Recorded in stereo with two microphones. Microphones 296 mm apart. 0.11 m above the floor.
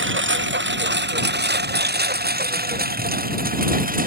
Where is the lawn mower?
40° right (ahead or behind); by 4.1 s 30° right (ahead or behind).